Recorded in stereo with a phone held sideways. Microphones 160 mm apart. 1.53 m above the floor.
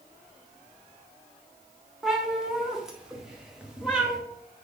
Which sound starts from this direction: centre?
A cat meowing, at 2.0 s.